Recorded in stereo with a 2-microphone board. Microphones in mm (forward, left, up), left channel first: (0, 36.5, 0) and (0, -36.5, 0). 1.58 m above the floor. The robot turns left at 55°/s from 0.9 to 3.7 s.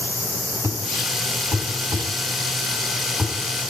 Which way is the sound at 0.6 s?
40° right (ahead or behind).